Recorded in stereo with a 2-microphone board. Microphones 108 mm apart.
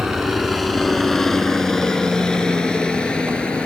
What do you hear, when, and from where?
0.0 s a helicopter: centre (ahead or behind); by 3.7 s 10° left (ahead or behind)